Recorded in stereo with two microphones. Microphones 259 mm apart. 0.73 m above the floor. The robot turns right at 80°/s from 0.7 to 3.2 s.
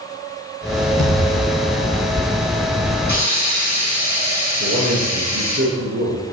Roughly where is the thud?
Left.